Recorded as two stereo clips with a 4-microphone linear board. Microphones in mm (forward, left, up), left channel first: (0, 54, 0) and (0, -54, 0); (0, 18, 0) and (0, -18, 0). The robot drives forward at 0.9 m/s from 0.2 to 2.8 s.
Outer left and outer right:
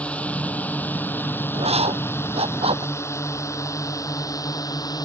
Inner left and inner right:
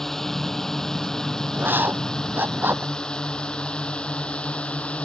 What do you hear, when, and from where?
0.0 s a drone: 10° left (ahead or behind); by 5.0 s 35° left (ahead or behind)
1.5 s writing: 75° right (ahead or behind); by 2.9 s 65° right (ahead or behind)